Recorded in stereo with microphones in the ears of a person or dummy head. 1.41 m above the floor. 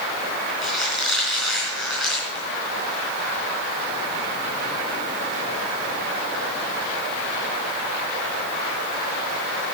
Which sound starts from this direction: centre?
A squeak, at 0.6 s.